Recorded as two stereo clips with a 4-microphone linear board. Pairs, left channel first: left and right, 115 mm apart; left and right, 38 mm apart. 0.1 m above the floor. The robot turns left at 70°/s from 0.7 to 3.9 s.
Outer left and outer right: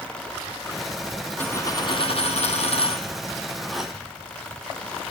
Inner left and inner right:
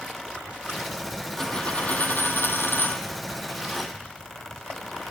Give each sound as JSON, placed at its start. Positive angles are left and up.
{"t": 1.4, "sound": "a dropped coin", "side_deg": 15, "distance_m": 0.6}